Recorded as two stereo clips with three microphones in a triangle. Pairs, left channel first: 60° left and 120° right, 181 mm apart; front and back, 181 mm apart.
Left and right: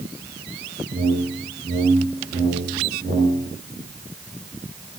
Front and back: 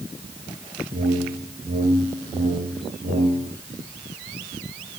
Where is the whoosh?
145° right, 1.4 m.